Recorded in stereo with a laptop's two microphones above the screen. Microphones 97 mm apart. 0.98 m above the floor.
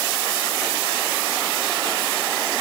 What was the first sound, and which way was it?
Only background noise.